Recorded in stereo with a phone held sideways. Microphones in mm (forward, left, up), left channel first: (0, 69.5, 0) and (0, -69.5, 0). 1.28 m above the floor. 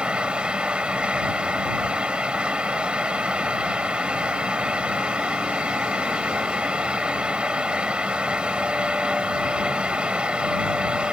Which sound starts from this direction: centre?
A fan, at 0.0 s.